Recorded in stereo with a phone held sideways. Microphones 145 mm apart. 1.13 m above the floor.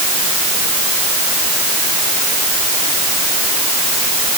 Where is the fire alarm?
I don't hear a fire alarm.